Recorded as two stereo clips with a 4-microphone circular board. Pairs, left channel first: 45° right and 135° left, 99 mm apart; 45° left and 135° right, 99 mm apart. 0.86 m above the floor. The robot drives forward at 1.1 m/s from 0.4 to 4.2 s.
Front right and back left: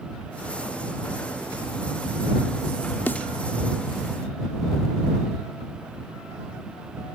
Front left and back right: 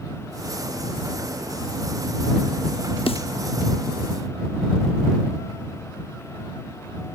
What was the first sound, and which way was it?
A snare drum, 25° left.